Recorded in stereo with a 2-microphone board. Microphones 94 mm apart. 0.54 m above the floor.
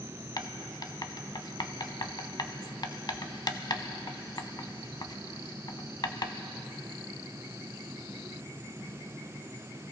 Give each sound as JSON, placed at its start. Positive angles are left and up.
{"t": 0.4, "sound": "writing", "side_deg": 50, "distance_m": 0.7}